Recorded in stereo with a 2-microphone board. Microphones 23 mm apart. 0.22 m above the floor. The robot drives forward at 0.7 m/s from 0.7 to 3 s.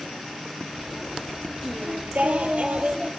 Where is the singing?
75° right (ahead or behind), 0.7 m; by 3.1 s 40° right (ahead or behind), 1.0 m.